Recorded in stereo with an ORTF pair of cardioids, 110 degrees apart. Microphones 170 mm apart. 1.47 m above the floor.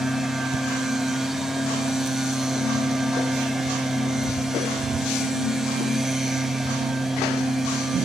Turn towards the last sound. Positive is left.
turn(degrees=0)